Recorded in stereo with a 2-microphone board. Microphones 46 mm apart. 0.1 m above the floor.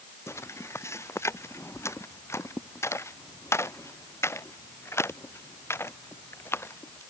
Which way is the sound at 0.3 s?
85° left.